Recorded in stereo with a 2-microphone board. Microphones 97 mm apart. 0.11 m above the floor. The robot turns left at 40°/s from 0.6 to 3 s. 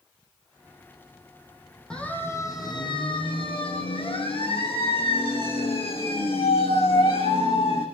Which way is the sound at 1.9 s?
10° left (ahead or behind).